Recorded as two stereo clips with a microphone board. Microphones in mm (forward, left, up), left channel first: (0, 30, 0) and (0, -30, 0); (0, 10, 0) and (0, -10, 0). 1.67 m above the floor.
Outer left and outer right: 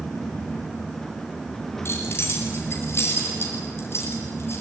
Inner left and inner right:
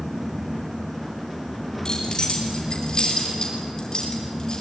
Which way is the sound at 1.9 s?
45° left (ahead or behind).